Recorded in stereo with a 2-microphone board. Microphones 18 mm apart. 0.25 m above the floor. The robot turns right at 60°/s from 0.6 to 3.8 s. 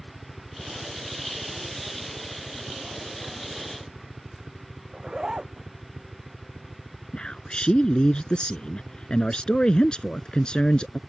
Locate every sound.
0.0 s a helicopter: 35° left; by 11.1 s 130° right
4.9 s a zipper: 40° right (ahead or behind)
7.1 s a man speaking: 65° left (ahead or behind)